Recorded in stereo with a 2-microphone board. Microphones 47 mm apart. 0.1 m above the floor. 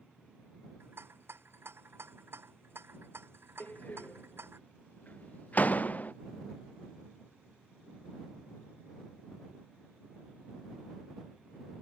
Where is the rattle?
60° right (ahead or behind).